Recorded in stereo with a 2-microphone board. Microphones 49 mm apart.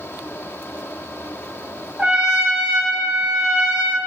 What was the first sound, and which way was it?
A trumpet, 20° right (ahead or behind).